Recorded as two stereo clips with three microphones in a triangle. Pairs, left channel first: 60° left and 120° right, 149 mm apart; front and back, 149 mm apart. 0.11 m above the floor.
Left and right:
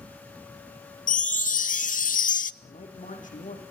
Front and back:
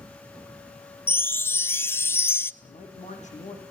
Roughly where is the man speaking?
Ahead left.